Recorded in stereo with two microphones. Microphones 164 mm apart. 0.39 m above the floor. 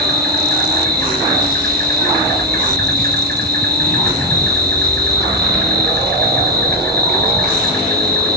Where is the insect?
85° right, 1.9 m.